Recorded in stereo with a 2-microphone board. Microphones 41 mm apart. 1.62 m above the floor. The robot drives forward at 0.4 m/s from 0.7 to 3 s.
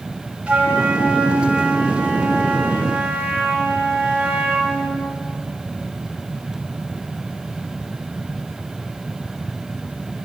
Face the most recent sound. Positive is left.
turn(degrees=-20)  # may be behind; listen again after turning